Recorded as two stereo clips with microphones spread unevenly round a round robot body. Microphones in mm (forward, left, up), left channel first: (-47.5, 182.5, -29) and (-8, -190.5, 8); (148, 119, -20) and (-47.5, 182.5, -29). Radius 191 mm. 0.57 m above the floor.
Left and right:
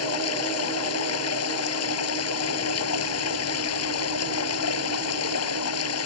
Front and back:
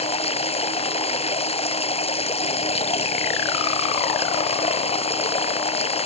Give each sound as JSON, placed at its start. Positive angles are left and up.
{"t": 0.0, "sound": "running water", "azimuth_deg": 40}